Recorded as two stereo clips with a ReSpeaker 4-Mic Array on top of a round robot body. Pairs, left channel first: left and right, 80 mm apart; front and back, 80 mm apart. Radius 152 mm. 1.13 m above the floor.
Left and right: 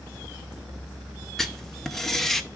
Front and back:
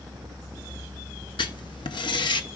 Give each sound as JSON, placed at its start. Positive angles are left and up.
{"t": 1.4, "sound": "writing", "azimuth_deg": 5, "distance_m": 0.8}